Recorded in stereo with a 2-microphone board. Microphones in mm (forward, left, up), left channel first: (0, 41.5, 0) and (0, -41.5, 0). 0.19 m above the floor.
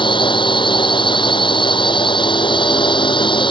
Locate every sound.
0.0 s a drone: 80° left